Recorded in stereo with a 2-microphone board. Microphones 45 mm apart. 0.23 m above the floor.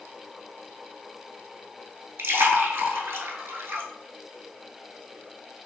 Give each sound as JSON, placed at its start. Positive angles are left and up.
{"t": 2.2, "sound": "a splash", "side_deg": -60, "distance_m": 0.6}